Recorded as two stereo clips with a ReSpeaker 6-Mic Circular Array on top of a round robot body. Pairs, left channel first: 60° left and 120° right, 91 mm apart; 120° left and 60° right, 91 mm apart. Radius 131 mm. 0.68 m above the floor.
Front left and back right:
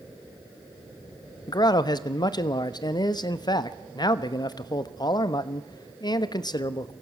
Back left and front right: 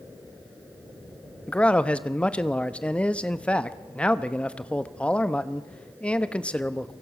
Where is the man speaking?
45° left, 1.2 m.